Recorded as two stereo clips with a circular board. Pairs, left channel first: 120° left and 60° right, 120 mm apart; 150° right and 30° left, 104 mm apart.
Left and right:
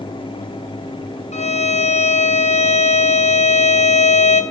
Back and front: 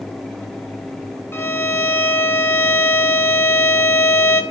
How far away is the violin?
About 0.8 m.